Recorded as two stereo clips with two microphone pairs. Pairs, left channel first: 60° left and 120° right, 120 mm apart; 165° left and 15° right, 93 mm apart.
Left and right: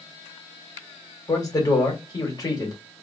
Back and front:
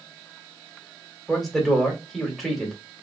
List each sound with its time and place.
1.3 s a man speaking: 75° left, 1.4 m